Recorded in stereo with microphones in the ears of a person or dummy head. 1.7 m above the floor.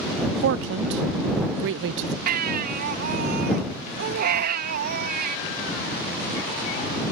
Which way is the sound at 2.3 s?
60° right (ahead or behind).